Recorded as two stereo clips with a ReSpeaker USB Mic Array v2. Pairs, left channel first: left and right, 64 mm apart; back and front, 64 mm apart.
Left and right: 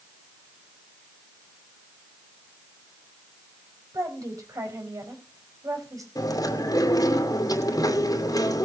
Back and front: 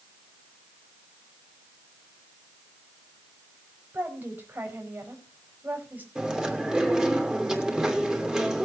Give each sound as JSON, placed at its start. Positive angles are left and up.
{"t": 3.9, "sound": "a woman speaking", "azimuth_deg": -60, "distance_m": 4.5}
{"t": 6.2, "sound": "chewing", "azimuth_deg": 80, "distance_m": 2.5}